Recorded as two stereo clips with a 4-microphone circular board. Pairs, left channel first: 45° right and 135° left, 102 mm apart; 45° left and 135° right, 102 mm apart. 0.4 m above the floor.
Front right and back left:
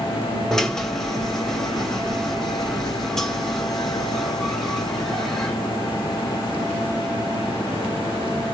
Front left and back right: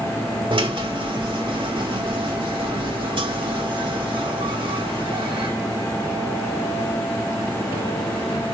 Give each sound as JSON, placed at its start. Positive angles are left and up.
{"t": 0.5, "sound": "a drill", "azimuth_deg": -130, "distance_m": 2.0}